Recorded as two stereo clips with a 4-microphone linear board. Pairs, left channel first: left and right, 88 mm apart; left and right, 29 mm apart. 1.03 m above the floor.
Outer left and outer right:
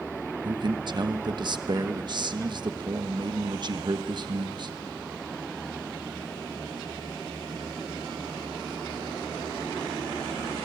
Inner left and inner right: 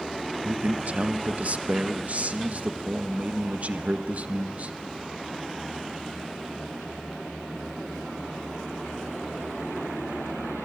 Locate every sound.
0.4 s a man speaking: 55° right (ahead or behind), 1.0 m